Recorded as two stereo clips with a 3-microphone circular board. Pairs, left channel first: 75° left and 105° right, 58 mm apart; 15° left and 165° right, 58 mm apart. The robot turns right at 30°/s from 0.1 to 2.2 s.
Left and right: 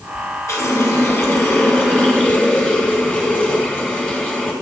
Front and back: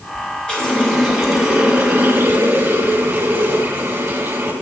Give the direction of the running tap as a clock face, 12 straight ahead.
9 o'clock.